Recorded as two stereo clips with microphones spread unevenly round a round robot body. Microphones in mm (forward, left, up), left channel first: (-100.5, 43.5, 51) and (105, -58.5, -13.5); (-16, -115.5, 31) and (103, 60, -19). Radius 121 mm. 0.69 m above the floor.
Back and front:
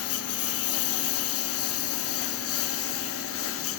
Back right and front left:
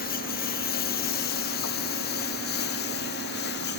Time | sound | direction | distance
0.0 | a lawn mower | straight behind | ?